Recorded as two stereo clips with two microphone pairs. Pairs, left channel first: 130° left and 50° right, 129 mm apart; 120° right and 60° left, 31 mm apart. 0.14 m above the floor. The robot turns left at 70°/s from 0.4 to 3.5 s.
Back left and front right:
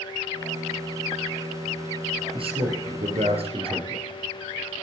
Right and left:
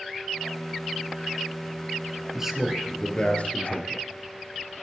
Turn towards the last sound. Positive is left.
turn(degrees=-90)